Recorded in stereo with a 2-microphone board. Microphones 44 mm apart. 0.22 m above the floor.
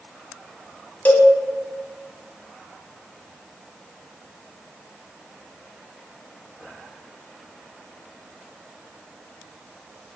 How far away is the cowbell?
About 0.7 m.